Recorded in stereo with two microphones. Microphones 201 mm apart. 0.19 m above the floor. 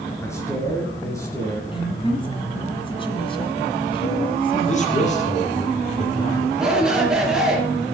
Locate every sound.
0.2 s a man speaking: 15° left (ahead or behind), 3 m
1.7 s a woman speaking: 25° left (ahead or behind), 1.7 m
4.7 s a man speaking: 35° left (ahead or behind), 4 m
6.6 s a shout: 5° right (ahead or behind), 4.5 m